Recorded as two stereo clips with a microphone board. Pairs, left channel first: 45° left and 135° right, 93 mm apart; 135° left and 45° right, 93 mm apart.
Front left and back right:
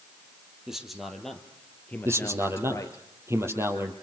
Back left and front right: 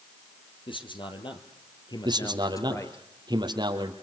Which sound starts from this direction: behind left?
A man speaking, at 0.7 s.